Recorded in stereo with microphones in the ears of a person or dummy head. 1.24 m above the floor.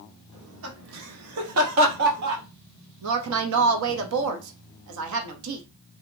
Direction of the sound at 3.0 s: 75° right (ahead or behind).